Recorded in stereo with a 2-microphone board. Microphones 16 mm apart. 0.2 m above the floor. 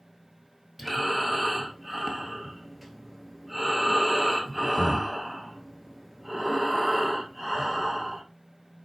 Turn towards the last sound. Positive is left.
turn(degrees=-10)  # may be behind; listen again after turning